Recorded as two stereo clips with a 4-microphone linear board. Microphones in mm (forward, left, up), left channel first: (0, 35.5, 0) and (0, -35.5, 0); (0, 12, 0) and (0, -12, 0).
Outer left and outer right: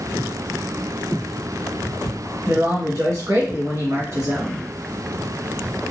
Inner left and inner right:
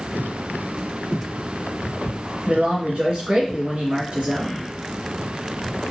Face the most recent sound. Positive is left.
turn(degrees=-50)  # may be behind; listen again after turning